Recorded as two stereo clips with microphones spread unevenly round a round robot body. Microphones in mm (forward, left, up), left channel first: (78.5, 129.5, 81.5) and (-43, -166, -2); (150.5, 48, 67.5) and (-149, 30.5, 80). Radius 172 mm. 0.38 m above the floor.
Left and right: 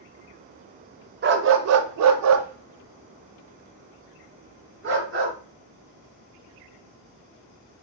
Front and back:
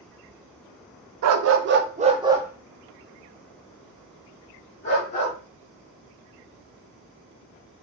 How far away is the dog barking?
About 0.6 m.